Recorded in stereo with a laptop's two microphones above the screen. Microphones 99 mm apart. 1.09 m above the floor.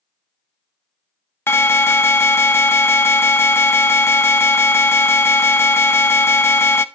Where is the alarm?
25° left (ahead or behind), 0.7 m.